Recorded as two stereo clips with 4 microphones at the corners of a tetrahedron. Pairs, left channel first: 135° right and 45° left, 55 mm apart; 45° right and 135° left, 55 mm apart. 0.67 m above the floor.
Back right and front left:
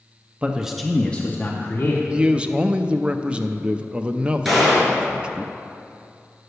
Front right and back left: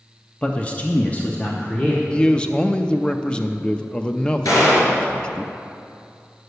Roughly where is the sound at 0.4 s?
Ahead.